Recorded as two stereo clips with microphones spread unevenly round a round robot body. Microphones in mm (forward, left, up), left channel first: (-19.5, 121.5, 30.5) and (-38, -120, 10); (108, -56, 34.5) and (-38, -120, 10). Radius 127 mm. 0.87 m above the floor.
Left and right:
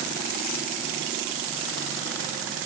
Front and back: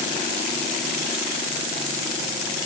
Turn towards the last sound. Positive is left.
No sound to turn to.